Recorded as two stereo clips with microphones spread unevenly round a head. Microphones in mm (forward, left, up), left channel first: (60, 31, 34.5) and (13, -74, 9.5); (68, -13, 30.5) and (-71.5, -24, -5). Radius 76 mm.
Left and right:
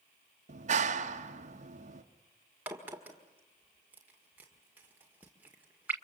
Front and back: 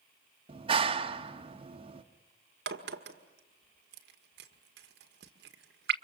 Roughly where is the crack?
Behind.